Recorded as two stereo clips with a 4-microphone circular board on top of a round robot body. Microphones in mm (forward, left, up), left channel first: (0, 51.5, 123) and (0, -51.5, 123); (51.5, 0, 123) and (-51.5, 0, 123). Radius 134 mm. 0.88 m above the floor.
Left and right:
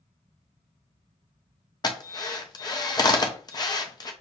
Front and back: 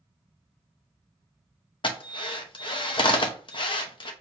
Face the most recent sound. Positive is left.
turn(degrees=40)